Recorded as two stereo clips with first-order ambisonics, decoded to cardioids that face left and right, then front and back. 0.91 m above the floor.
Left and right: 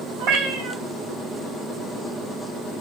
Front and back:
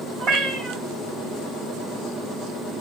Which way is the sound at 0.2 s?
125° right.